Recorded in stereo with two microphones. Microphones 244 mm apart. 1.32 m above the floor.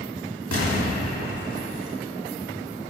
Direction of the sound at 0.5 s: 65° left (ahead or behind).